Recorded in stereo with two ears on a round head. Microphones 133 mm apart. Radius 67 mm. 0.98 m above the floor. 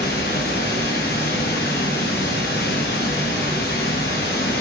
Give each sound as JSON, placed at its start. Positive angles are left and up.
{"t": 0.0, "sound": "running water", "side_deg": 75, "distance_m": 1.0}